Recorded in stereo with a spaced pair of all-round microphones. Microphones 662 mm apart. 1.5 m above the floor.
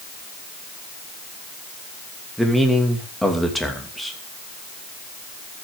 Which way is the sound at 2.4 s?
Centre (ahead or behind).